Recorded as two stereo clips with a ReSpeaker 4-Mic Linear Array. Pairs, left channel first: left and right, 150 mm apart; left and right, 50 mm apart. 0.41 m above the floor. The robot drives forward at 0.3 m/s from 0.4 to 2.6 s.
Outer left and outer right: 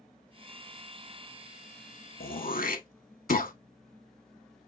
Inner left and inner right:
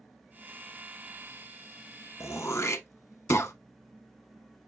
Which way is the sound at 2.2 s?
75° left (ahead or behind).